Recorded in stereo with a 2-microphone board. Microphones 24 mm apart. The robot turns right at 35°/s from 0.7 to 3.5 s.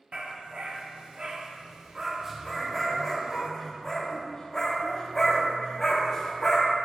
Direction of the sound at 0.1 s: 50° right (ahead or behind).